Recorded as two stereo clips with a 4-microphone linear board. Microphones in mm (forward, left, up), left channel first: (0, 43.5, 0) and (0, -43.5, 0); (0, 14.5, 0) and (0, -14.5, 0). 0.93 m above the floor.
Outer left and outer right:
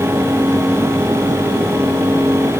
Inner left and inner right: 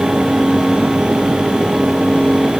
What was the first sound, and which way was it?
Only background noise.